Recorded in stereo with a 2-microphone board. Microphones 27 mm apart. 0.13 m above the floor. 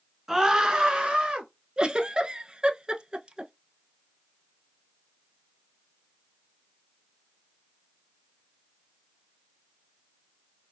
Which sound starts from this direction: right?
A giggle, at 1.8 s.